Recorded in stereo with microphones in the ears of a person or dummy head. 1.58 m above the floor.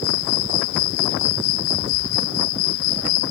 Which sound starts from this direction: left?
An insect, at 0.0 s.